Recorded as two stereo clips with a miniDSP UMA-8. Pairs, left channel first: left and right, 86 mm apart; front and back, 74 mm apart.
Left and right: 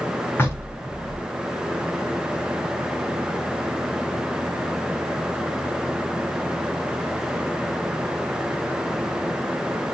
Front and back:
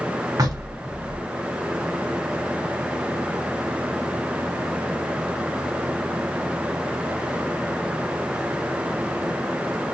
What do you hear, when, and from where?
0.4 s knocking: 150° left, 2.0 m